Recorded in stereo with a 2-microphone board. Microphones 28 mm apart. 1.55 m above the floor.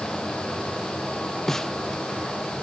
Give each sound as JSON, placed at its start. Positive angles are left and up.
{"t": 1.5, "sound": "a snare drum", "side_deg": 15}